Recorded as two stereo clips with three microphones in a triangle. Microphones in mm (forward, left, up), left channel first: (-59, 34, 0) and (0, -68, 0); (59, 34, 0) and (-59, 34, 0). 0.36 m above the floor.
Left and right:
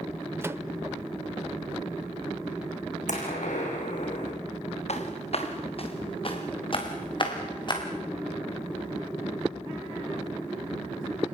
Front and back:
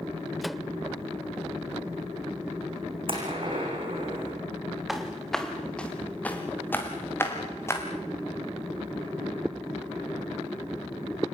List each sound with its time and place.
0.4 s a microwave: 90° right, 0.6 m
3.1 s a gunshot: 135° left, 7 m
4.9 s footsteps: 90° left, 3.5 m; by 7.8 s 70° left, 6 m